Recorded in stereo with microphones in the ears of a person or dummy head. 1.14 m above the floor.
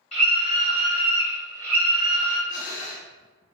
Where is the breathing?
40° left (ahead or behind), 1.3 m.